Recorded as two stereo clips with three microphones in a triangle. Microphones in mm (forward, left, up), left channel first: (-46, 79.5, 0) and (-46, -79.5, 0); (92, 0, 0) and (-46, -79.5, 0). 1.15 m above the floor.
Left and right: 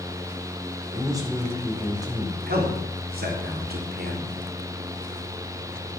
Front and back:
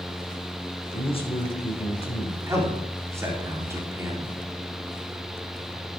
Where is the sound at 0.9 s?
25° right, 4.5 m.